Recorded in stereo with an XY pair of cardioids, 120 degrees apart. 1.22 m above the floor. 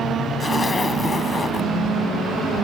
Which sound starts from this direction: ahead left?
A zipper, at 0.4 s.